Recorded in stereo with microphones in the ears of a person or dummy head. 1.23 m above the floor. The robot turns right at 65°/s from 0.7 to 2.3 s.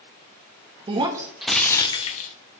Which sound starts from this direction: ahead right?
Breaking glass, at 0.9 s.